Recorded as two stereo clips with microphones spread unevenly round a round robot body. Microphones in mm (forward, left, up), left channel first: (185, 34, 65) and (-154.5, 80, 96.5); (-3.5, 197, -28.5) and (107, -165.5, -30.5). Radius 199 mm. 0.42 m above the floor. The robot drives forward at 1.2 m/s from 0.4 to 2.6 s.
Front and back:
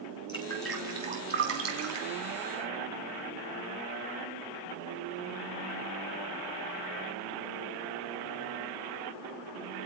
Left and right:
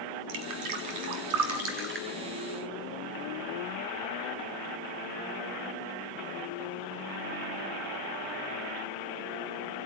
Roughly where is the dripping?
Right.